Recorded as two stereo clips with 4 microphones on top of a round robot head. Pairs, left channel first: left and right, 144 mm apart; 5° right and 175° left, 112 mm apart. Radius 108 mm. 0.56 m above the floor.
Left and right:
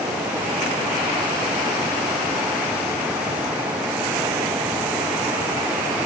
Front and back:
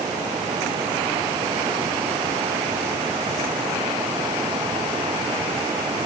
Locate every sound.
Only background noise.